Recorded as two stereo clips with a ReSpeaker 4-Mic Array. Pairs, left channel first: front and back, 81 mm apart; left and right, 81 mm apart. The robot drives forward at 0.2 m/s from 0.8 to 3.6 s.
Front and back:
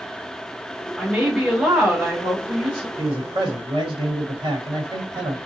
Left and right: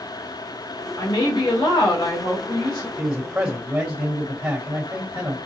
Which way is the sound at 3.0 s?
160° right.